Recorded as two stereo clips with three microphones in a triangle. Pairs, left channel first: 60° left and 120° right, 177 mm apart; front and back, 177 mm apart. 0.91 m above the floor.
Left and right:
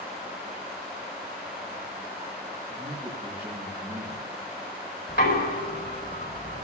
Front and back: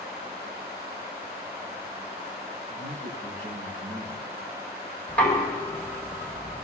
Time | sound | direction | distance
2.7 | a man speaking | 170° left | 5.5 m
5.1 | knocking | 80° left | 4.5 m